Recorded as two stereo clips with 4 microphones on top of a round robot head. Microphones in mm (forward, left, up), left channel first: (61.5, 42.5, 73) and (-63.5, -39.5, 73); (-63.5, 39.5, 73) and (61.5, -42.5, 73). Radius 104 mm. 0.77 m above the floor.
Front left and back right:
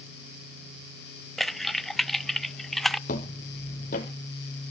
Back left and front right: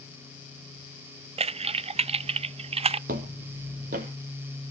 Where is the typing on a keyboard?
55° right, 0.5 m.